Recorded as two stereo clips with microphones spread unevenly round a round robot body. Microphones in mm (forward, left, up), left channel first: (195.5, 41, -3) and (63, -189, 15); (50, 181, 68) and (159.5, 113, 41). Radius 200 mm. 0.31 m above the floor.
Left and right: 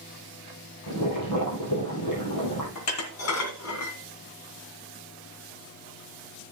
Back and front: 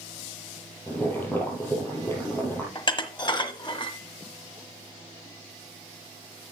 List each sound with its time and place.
0.9 s boiling: 75° left, 4 m
2.8 s dishes clattering: 90° left, 1.6 m